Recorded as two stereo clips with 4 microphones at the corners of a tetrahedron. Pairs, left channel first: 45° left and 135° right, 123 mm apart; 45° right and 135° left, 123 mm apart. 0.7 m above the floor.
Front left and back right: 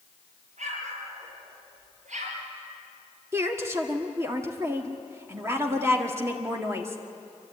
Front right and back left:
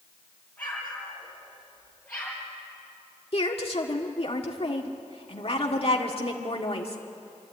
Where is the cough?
No cough in this recording.